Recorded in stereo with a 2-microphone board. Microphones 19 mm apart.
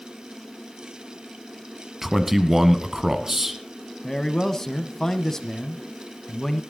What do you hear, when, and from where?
2.0 s a man speaking: 15° right (ahead or behind), 1.6 m
4.0 s a man speaking: 20° left (ahead or behind), 1.4 m